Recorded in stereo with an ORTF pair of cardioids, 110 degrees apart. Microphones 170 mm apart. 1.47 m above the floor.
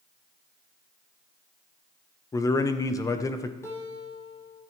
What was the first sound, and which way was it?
A man speaking, 20° left.